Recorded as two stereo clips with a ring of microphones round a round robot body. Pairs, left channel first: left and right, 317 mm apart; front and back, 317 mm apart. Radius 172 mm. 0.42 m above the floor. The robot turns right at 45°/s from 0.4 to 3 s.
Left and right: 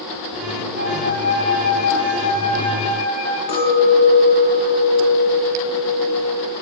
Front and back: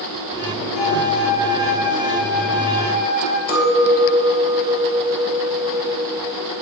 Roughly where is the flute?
Ahead right.